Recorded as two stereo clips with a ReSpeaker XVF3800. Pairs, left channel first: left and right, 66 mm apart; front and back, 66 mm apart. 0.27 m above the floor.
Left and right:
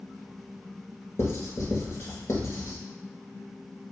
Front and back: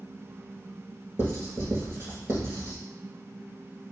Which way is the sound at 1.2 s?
130° left.